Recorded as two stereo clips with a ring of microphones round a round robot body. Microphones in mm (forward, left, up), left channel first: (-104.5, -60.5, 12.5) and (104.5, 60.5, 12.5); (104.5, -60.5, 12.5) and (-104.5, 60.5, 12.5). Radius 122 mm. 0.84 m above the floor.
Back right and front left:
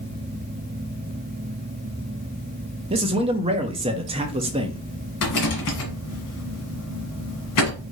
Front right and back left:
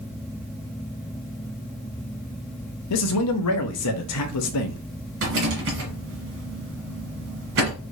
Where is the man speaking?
35° right, 0.7 m.